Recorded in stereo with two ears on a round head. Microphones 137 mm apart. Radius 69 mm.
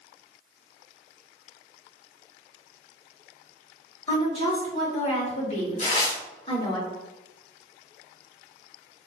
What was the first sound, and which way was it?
A woman speaking, 35° left (ahead or behind).